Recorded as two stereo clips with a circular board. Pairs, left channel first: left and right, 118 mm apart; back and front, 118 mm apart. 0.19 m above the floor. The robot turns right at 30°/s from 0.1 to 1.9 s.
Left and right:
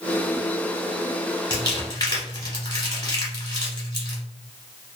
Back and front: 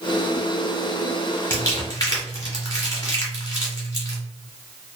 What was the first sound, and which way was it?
Crumpling, 120° left.